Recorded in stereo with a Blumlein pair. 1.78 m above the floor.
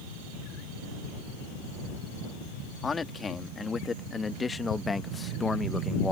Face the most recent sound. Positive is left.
turn(degrees=10)